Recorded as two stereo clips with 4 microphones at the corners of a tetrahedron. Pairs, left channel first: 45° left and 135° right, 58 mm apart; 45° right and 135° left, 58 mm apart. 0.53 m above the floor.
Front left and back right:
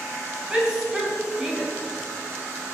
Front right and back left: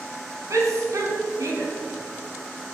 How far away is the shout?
About 4 m.